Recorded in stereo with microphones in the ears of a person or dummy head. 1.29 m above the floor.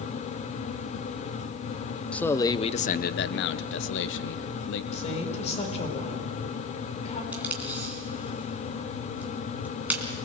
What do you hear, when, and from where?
2.1 s a man speaking: 5° left (ahead or behind), 0.6 m; by 4.8 s 65° left (ahead or behind), 1.4 m
4.9 s a woman speaking: 35° left (ahead or behind), 4 m
7.3 s tape being pulled: 10° right (ahead or behind), 3 m